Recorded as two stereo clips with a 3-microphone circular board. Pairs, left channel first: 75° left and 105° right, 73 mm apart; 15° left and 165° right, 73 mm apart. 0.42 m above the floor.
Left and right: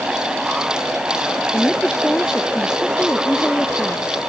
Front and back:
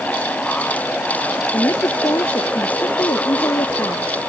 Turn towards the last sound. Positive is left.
turn(degrees=0)